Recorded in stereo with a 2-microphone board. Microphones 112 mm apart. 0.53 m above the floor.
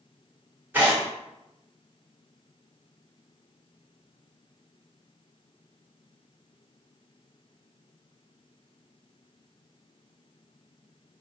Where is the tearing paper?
20° right (ahead or behind), 1.5 m.